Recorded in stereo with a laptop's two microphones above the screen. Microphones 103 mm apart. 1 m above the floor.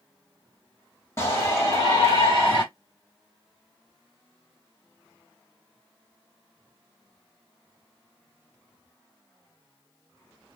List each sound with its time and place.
1.2 s a shout: 30° left (ahead or behind), 1.4 m; by 2.6 s 50° left (ahead or behind), 1.3 m